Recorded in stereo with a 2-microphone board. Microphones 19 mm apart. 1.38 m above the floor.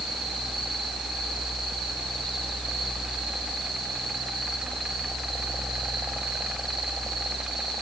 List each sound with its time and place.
Only background noise.